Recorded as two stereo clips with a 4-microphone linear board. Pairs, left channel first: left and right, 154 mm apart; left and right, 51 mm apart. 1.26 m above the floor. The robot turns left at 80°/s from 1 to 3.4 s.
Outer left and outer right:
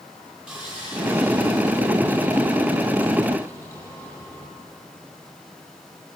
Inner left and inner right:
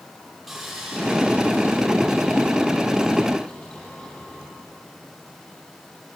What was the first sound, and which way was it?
Sawing, 5° right.